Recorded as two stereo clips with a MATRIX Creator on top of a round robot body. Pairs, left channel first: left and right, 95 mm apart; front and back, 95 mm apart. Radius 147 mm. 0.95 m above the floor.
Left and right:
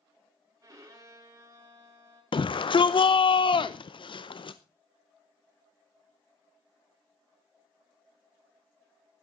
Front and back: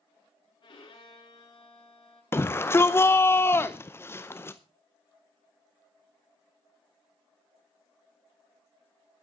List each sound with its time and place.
0.6 s a violin: 35° right, 5.5 m
2.3 s a shout: 65° left, 0.7 m